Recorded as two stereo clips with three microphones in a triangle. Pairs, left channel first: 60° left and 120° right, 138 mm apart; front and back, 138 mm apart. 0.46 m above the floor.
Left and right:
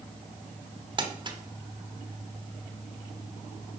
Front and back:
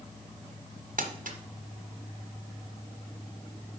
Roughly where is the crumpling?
Behind.